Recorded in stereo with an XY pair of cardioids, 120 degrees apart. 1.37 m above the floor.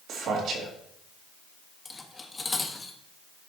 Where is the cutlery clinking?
20° left, 1.3 m.